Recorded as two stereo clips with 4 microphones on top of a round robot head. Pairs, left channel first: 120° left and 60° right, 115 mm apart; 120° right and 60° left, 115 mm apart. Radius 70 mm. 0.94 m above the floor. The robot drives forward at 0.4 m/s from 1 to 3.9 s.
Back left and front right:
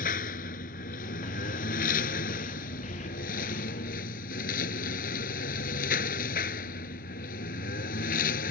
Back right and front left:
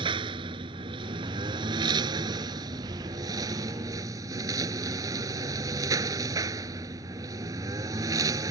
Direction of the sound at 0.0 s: 110° left.